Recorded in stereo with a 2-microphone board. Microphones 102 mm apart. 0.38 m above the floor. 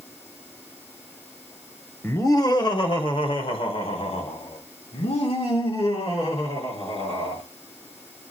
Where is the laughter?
25° left (ahead or behind), 1.0 m; by 7.4 s 75° left (ahead or behind), 5.5 m.